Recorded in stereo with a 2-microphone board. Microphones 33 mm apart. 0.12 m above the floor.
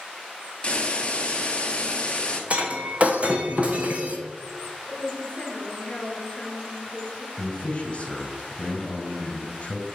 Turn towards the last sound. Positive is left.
turn(degrees=30)  # may be behind; listen again after turning